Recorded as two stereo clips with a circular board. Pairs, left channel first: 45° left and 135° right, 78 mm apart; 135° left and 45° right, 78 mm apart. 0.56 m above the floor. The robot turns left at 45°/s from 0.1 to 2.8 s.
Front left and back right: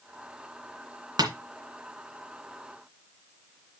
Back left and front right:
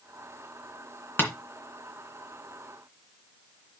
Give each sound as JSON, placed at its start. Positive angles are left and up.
{"t": 1.2, "sound": "tapping", "azimuth_deg": -165, "distance_m": 2.0}